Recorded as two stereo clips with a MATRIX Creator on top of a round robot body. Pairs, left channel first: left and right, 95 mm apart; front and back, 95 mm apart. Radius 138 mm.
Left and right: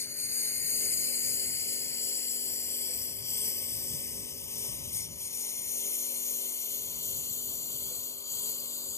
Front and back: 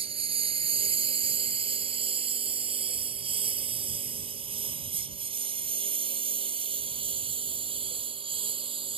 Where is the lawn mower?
155° left; by 9.0 s 150° left.